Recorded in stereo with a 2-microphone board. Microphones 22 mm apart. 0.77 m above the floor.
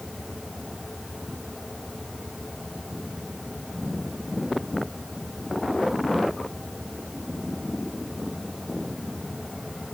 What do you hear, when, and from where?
Only background noise.